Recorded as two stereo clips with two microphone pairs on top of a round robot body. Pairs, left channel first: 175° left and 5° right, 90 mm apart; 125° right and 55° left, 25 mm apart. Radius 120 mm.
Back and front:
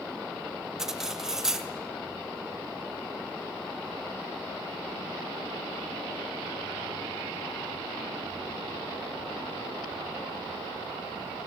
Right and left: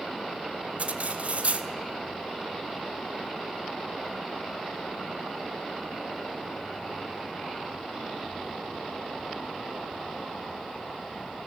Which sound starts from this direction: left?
Cutlery clinking, at 0.8 s.